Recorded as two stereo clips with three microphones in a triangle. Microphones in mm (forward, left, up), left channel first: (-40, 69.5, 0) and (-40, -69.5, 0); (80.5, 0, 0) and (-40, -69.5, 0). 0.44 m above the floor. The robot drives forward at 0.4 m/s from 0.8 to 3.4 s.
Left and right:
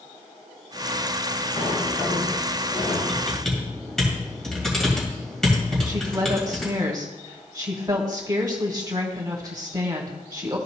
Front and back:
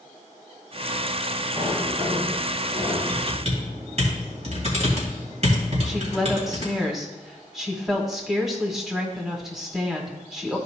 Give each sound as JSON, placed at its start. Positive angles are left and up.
{"t": 1.6, "sound": "a sliding door", "azimuth_deg": 135, "distance_m": 3.5}
{"t": 3.1, "sound": "typing on a keyboard", "azimuth_deg": 175, "distance_m": 2.5}
{"t": 5.8, "sound": "a woman speaking", "azimuth_deg": -65, "distance_m": 1.2}